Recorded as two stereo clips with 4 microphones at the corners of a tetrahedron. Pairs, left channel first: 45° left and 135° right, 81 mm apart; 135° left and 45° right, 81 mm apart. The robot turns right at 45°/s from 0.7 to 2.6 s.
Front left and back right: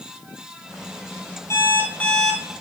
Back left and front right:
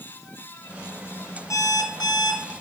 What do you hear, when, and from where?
1.5 s an alarm clock: 95° left, 1.9 m; by 2.5 s 140° left, 1.9 m